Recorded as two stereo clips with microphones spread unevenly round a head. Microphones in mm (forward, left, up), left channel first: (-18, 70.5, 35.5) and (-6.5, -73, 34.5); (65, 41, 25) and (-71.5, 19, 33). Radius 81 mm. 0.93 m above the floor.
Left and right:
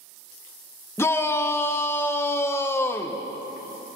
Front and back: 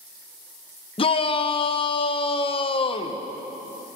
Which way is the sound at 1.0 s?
30° left.